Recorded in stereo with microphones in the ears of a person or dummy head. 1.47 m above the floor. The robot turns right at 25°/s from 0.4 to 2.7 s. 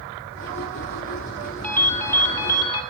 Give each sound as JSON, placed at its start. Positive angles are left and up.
{"t": 1.6, "sound": "a ringtone", "side_deg": 10, "distance_m": 0.7}